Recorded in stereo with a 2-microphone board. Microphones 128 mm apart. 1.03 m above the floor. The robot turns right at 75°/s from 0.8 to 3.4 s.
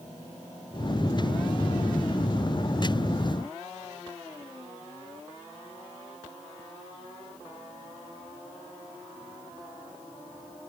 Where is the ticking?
I don't hear ticking.